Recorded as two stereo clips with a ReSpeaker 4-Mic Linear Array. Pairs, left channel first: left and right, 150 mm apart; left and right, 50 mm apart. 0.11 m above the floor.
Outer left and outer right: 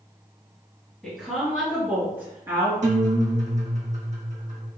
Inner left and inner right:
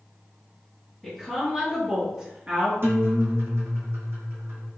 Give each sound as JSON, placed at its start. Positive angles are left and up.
{"t": 1.0, "sound": "a woman speaking", "side_deg": 5, "distance_m": 1.8}
{"t": 2.8, "sound": "a guitar", "side_deg": -55, "distance_m": 0.9}